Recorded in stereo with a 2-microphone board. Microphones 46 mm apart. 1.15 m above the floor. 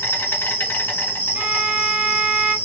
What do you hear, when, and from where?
0.0 s an insect: 50° left (ahead or behind), 1.4 m
1.4 s a violin: 20° right (ahead or behind), 0.6 m